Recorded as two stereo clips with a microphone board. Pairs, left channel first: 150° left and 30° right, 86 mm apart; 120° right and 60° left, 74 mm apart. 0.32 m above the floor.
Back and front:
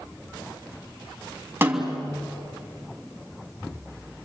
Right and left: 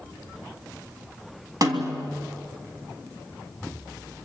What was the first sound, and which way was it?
A snare drum, 35° left.